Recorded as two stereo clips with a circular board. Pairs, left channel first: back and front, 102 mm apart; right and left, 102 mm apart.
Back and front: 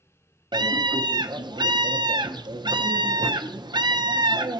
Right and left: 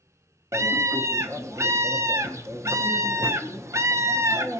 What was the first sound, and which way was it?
A scream, 35° left.